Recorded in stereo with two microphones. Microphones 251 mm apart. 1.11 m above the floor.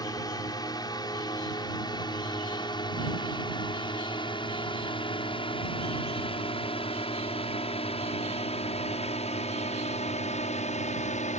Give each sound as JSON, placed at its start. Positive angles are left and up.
{"t": 0.0, "sound": "a drone", "side_deg": 15}